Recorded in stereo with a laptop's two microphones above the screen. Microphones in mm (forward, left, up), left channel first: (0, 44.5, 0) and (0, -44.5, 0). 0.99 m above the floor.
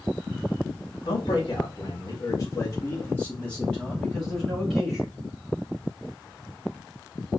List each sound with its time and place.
1.1 s a man speaking: 65° left (ahead or behind), 1.7 m; by 5.1 s centre (ahead or behind), 3 m